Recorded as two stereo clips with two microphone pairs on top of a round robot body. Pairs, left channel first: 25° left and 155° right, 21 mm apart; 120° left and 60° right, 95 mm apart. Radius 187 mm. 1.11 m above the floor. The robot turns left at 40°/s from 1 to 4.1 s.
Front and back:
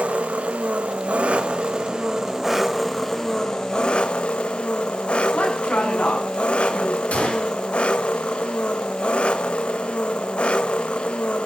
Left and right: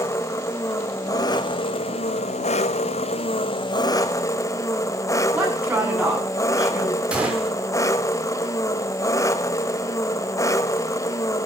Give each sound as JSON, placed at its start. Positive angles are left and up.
{"t": 0.0, "sound": "an engine running", "azimuth_deg": -175, "distance_m": 1.0}
{"t": 5.3, "sound": "a woman speaking", "azimuth_deg": 15, "distance_m": 9.5}
{"t": 7.1, "sound": "a gunshot", "azimuth_deg": 20, "distance_m": 5.0}